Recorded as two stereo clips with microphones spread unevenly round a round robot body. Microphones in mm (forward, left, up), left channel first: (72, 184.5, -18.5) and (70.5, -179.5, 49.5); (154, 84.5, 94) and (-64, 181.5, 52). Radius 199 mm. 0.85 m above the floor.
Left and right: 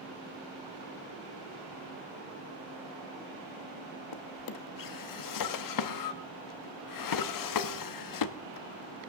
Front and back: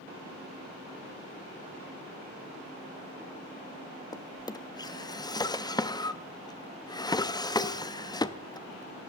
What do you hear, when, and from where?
4.1 s a drawer: 55° left, 0.8 m